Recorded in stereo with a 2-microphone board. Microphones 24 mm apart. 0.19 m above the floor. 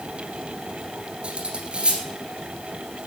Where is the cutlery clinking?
40° right (ahead or behind), 2 m.